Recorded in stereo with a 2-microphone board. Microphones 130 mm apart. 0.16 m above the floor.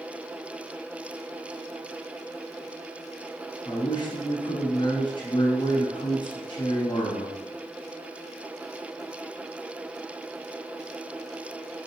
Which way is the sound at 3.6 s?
40° left (ahead or behind).